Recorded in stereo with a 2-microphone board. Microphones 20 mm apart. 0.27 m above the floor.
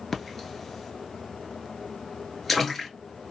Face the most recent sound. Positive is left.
turn(degrees=10)  # may be behind; listen again after turning